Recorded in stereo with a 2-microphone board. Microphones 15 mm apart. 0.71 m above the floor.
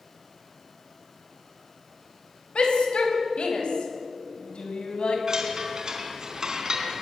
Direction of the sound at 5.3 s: 45° right (ahead or behind).